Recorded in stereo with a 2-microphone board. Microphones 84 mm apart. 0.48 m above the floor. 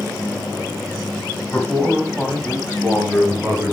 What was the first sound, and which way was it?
A man speaking, 10° left (ahead or behind).